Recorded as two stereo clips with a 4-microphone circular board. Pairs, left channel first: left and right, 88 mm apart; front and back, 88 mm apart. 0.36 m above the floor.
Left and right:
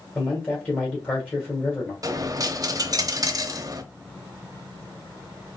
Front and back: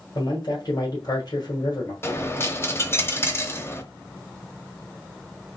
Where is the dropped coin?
55° right, 0.7 m.